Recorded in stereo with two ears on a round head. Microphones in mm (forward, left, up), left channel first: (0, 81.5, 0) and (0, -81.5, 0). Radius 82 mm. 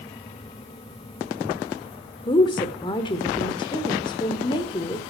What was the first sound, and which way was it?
A woman speaking, 25° left (ahead or behind).